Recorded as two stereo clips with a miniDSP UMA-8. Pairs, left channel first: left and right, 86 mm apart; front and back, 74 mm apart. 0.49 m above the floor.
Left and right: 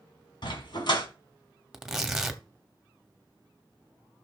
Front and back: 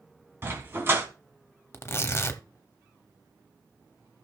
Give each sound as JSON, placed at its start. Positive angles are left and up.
{"t": 0.4, "sound": "a dog barking", "azimuth_deg": 120, "distance_m": 1.9}
{"t": 1.7, "sound": "tearing paper", "azimuth_deg": -5, "distance_m": 0.9}